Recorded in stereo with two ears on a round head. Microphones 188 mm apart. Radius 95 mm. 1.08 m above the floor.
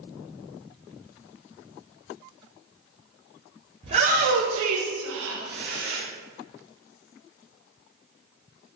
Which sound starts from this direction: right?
A shout, at 3.8 s.